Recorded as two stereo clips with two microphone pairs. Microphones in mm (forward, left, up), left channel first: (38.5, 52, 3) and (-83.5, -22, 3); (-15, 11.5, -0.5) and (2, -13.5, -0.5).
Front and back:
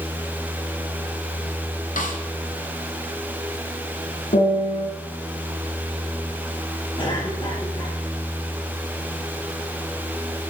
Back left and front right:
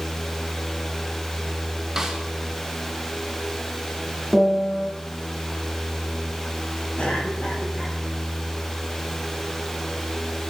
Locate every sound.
2.0 s a snare drum: 15° left, 2 m
4.3 s a piano: 25° left, 5 m
7.0 s a cough: 85° left, 6.5 m